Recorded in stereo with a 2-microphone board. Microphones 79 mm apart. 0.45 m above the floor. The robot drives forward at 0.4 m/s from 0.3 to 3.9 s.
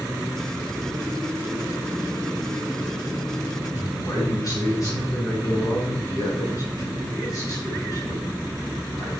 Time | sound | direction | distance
3.8 | a man speaking | 45° left (ahead or behind) | 4.5 m